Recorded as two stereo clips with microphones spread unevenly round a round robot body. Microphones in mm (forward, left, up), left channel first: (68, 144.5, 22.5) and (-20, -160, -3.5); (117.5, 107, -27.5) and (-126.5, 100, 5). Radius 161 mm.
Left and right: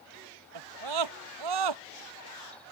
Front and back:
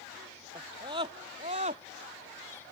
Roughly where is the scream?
Right.